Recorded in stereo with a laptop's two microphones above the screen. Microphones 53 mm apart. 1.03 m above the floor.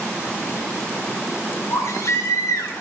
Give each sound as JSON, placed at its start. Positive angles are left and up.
{"t": 1.7, "sound": "a baby crying", "side_deg": 80, "distance_m": 3.5}